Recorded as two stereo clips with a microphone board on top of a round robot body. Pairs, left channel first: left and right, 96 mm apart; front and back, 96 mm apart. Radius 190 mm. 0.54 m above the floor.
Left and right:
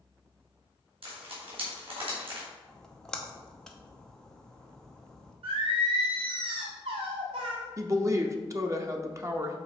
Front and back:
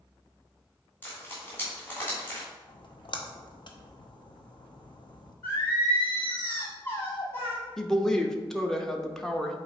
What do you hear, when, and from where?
1.0 s frying: 70° right, 2.5 m
2.7 s a splash: 5° left, 1.1 m
5.4 s singing: 70° right, 0.9 m
7.8 s a woman speaking: 80° right, 1.0 m